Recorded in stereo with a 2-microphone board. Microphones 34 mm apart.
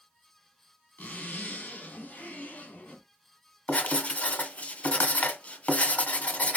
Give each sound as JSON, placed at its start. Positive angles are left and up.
{"t": 1.0, "sound": "a zipper", "side_deg": 60, "distance_m": 2.0}
{"t": 3.7, "sound": "writing", "side_deg": 55, "distance_m": 1.1}